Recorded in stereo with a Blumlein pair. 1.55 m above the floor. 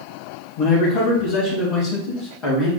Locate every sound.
0.6 s a man speaking: 40° left, 1.5 m; by 2.7 s 35° left, 3 m